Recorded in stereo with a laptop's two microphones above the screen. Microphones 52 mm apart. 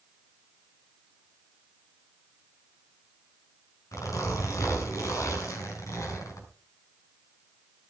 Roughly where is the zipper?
Left.